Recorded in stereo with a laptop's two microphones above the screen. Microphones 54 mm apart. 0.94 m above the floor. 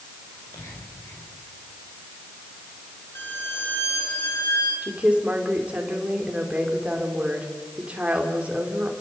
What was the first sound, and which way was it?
Whispering, 70° left (ahead or behind).